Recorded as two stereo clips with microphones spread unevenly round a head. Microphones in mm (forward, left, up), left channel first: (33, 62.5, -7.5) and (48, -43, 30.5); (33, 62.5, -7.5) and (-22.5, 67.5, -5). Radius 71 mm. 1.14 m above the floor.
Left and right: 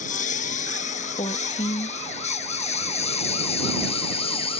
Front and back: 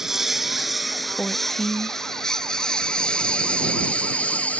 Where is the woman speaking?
75° left.